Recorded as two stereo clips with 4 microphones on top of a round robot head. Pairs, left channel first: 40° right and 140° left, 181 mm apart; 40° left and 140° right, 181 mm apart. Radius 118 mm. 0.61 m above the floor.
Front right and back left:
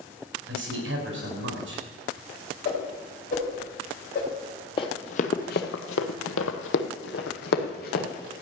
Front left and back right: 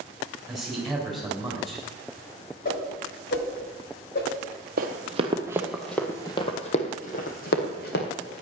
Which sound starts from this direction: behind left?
A man speaking, at 0.5 s.